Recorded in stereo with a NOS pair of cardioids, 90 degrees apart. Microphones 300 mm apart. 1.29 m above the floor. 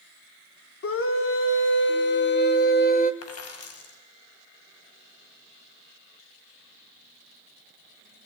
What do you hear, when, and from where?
0.8 s a scream: 45° left, 4 m; by 3.1 s 30° left, 3.5 m
3.2 s a dropped coin: 55° left, 5 m